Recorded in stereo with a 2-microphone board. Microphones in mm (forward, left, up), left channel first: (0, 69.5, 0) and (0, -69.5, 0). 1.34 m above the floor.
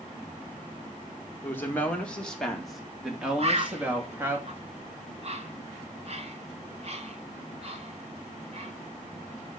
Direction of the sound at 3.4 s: 45° right (ahead or behind).